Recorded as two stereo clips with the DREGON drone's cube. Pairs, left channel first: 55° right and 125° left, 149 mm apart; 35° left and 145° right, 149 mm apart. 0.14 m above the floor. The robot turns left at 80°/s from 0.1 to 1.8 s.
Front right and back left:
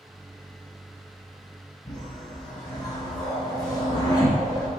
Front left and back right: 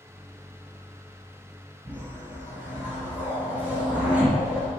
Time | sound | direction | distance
1.9 | a whoosh | 80° right | 1.8 m